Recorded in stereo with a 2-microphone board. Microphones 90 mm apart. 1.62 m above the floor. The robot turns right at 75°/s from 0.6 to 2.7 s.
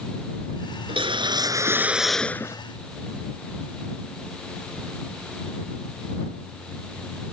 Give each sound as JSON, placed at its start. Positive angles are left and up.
{"t": 0.9, "sound": "a whoosh", "azimuth_deg": -90}